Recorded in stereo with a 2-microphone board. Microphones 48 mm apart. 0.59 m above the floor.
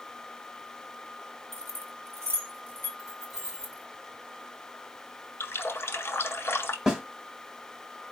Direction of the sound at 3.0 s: 15° right (ahead or behind).